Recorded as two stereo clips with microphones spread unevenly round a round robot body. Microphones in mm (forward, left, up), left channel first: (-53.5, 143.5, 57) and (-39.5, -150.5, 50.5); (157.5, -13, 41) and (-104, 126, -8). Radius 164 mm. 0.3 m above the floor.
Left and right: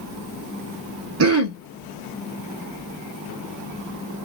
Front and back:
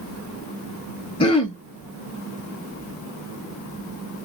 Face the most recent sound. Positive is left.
turn(degrees=-105)